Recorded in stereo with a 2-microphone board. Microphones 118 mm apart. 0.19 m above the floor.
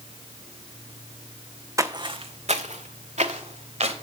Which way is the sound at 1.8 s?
30° right (ahead or behind).